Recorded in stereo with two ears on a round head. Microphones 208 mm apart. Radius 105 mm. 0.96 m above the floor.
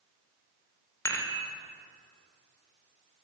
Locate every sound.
1.1 s dishes clattering: 10° left (ahead or behind), 2 m